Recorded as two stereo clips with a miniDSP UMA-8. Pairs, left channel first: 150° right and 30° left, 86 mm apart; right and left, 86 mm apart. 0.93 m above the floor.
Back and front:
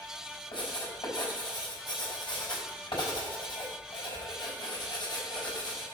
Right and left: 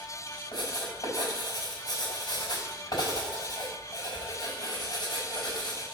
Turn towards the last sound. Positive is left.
turn(degrees=-125)